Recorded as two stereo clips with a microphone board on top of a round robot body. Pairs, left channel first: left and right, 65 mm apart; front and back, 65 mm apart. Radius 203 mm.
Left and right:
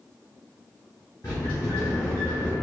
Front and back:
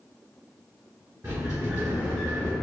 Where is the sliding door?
135° left, 1.1 m.